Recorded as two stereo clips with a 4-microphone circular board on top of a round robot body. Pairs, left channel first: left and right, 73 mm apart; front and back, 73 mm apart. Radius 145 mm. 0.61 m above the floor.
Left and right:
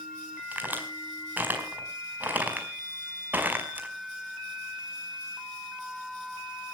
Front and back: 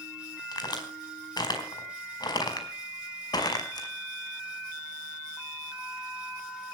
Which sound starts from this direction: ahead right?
A crack, at 0.5 s.